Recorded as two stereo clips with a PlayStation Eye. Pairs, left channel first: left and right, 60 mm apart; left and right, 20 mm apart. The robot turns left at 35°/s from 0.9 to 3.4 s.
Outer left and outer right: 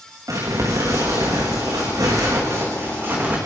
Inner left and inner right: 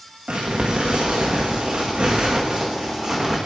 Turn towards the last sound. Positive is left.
turn(degrees=-155)